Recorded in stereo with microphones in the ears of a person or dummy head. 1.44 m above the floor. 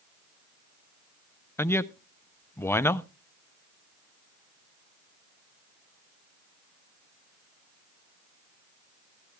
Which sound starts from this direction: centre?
A man speaking, at 1.6 s.